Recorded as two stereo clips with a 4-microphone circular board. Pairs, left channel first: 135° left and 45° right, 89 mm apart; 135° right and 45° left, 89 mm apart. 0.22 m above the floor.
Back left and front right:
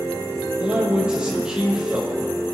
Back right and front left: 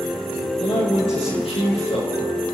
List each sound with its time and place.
0.6 s a man speaking: 125° right, 5.5 m